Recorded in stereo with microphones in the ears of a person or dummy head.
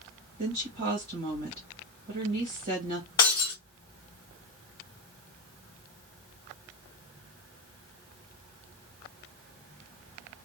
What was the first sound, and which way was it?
A woman speaking, 50° right (ahead or behind).